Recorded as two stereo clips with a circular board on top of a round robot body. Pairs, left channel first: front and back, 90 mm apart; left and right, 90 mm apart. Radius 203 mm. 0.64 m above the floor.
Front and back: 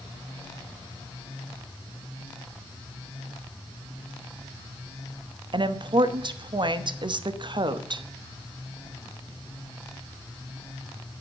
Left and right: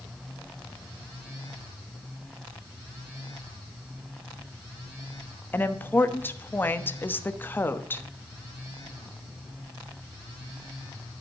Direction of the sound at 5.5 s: 155° left.